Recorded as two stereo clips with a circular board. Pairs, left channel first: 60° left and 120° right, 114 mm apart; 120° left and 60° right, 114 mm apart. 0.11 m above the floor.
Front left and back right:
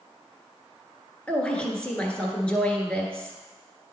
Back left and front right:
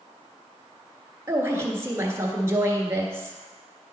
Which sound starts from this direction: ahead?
A woman speaking, at 1.3 s.